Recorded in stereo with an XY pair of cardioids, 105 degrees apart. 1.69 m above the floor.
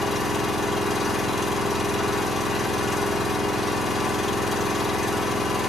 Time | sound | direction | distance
0.0 | an engine running | 20° left | 1.7 m